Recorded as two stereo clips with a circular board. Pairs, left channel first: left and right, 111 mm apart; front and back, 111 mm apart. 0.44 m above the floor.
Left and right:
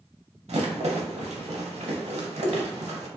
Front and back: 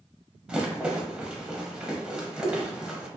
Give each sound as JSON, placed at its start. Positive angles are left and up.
{"t": 0.5, "sound": "a rattle", "azimuth_deg": -100, "distance_m": 0.7}